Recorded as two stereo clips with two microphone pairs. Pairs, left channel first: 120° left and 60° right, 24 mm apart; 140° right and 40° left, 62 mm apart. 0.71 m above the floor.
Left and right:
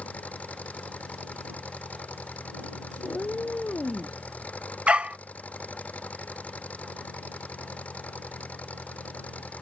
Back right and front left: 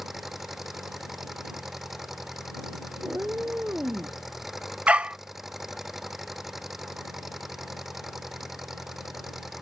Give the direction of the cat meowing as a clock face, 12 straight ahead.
9 o'clock.